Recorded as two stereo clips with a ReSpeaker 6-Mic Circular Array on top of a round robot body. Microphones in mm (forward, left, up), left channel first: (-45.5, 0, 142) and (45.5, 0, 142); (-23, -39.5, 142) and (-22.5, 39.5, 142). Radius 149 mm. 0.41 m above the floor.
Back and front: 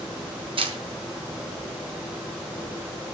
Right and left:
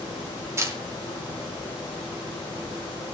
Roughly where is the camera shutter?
Ahead left.